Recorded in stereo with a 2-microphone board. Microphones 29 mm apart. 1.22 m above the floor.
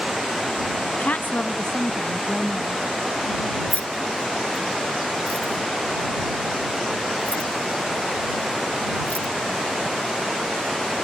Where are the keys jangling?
55° left (ahead or behind).